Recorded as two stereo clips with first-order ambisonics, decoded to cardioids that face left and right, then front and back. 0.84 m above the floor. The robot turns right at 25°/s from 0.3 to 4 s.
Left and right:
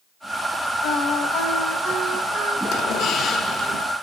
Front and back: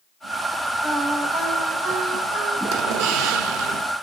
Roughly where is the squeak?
Behind left.